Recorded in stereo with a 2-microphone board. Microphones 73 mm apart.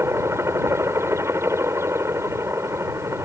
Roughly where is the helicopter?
Right.